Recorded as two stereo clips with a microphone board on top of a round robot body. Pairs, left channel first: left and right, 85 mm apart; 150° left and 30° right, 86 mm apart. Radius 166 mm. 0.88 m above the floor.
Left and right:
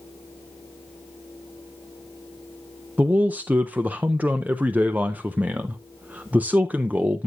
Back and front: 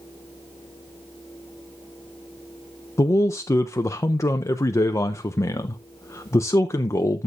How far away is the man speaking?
About 0.6 m.